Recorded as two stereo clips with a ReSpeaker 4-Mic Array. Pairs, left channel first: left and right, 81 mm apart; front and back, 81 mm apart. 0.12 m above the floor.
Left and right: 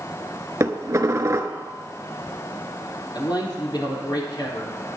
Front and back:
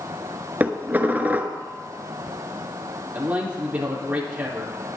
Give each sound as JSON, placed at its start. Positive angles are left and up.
{"t": 0.6, "sound": "dishes clattering", "azimuth_deg": -120, "distance_m": 1.0}
{"t": 3.1, "sound": "a man speaking", "azimuth_deg": 110, "distance_m": 3.5}